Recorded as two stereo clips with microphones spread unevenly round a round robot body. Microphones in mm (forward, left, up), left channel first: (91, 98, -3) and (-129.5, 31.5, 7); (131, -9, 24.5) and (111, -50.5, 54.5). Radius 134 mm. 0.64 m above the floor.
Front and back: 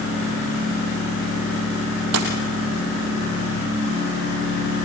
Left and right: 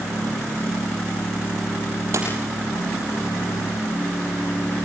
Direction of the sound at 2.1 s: 125° right.